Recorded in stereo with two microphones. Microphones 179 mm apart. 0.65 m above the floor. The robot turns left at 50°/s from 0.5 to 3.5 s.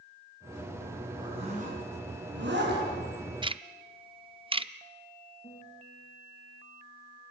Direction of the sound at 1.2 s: 20° right (ahead or behind).